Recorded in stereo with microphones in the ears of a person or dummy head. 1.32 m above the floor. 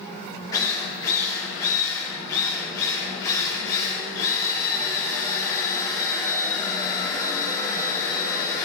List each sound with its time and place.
0.5 s a drill: 20° left (ahead or behind), 2.5 m